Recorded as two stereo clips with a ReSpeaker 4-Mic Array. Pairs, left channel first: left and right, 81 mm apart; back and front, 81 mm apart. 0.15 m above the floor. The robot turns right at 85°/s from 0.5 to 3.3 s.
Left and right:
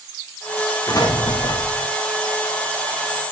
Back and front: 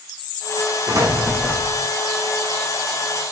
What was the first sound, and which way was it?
An explosion, 45° left.